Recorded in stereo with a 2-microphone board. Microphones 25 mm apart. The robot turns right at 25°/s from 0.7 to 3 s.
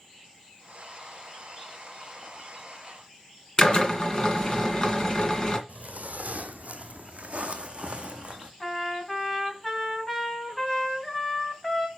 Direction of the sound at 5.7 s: 70° right (ahead or behind).